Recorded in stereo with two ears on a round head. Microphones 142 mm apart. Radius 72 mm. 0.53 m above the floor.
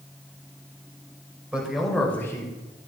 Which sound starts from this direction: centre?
A man speaking, at 1.5 s.